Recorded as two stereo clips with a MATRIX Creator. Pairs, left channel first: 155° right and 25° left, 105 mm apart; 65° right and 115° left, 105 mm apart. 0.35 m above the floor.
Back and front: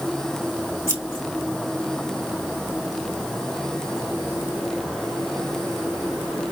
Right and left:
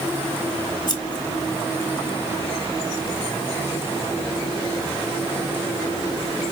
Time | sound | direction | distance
0.9 | scissors | 35° right | 1.4 m